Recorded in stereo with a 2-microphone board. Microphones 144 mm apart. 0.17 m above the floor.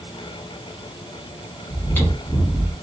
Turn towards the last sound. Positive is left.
turn(degrees=15)  # may be behind; listen again after turning